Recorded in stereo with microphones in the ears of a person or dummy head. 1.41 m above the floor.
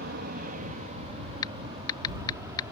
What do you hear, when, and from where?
0.0 s an aircraft: 50° right (ahead or behind); by 2.7 s 10° right (ahead or behind)
1.4 s typing on a keyboard: 25° left (ahead or behind)